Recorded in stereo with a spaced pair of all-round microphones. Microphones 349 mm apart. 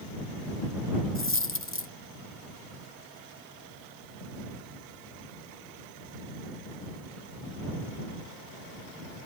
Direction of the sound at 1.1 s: 35° left (ahead or behind).